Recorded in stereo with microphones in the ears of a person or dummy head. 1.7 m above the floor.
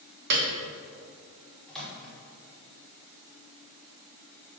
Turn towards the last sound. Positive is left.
turn(degrees=0)  # may be behind; listen again after turning